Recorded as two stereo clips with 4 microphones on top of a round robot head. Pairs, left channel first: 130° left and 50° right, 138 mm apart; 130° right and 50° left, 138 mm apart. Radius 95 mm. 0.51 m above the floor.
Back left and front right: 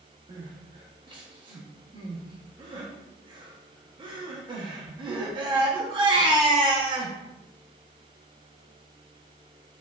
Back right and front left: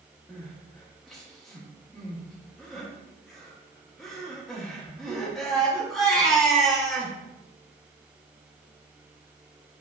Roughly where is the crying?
Ahead right.